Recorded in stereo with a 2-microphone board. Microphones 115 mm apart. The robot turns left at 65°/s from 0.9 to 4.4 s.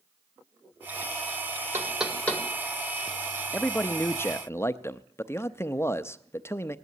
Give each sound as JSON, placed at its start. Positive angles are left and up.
{"t": 1.7, "sound": "knocking", "side_deg": -20, "distance_m": 1.9}
{"t": 3.5, "sound": "a man speaking", "side_deg": 10, "distance_m": 0.5}